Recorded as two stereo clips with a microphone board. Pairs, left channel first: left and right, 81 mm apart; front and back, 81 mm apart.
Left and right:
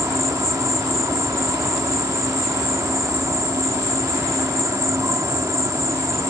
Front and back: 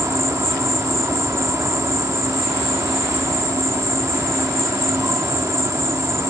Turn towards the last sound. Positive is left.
turn(degrees=-135)